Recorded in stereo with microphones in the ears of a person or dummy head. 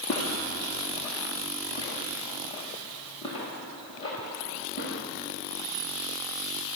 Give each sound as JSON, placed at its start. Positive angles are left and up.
{"t": 0.1, "sound": "footsteps", "side_deg": 30, "distance_m": 6.0}